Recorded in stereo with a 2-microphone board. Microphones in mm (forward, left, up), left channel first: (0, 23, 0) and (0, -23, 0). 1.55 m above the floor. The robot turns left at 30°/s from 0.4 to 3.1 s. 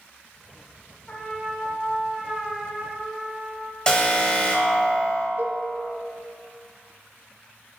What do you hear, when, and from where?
1.1 s a trumpet: 30° left, 2 m; by 3.8 s 30° right, 2 m
3.9 s an alarm: 20° left (ahead or behind), 1.5 m
5.4 s a cowbell: 50° right (ahead or behind), 0.8 m